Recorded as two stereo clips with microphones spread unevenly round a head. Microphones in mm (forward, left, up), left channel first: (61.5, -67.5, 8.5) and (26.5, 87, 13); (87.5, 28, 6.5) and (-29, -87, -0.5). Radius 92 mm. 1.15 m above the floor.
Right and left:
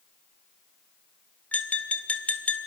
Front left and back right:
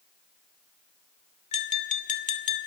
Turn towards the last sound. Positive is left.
turn(degrees=5)